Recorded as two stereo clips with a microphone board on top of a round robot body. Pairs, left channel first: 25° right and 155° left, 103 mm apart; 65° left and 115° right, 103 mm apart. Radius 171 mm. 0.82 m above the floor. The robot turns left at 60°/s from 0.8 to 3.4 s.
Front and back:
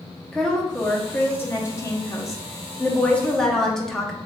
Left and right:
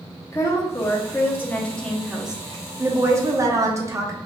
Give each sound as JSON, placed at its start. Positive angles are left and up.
{"t": 0.3, "sound": "a woman speaking", "azimuth_deg": 55, "distance_m": 0.9}